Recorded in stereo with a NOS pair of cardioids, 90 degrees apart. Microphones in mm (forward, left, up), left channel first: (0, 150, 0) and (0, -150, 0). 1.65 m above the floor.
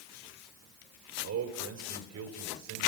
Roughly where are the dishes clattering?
I don't hear dishes clattering.